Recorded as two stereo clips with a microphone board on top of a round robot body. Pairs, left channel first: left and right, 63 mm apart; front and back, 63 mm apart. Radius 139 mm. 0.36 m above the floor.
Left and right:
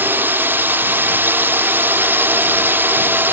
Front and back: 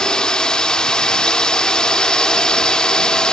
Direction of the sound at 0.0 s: 70° right.